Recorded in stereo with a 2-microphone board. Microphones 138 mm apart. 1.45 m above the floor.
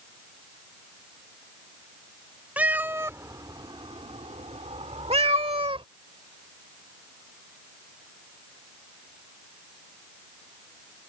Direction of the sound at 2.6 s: 10° right (ahead or behind).